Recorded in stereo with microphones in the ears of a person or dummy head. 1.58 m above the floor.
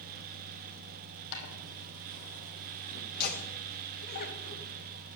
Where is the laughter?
50° left (ahead or behind), 1.9 m.